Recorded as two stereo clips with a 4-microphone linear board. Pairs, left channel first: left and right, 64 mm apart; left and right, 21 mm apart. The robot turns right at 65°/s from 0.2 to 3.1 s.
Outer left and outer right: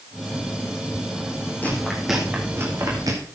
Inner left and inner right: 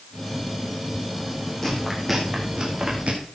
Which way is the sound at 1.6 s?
25° left (ahead or behind).